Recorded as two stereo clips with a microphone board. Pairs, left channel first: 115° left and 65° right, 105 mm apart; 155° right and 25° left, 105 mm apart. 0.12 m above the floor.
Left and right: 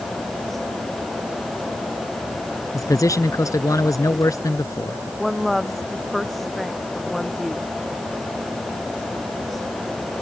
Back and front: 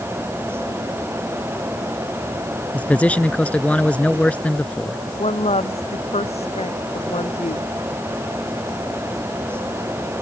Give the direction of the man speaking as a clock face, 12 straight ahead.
8 o'clock.